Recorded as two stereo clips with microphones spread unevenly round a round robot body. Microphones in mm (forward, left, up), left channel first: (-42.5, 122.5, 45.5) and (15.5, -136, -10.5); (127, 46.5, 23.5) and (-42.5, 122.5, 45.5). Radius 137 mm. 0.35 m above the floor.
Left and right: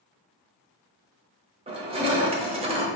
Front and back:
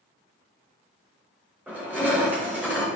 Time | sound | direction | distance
1.7 | crushing | 120° right | 0.8 m